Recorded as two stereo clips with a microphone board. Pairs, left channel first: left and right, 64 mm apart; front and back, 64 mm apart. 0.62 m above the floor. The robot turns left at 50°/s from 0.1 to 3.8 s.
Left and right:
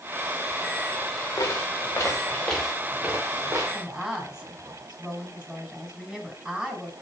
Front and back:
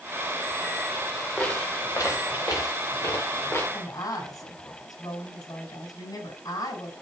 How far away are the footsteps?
About 5 m.